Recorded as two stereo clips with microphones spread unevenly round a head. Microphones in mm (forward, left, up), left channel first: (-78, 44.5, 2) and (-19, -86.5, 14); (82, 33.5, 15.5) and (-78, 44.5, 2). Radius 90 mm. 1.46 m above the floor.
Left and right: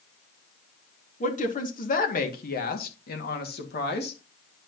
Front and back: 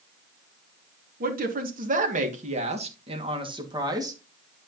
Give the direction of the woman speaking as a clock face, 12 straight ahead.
7 o'clock.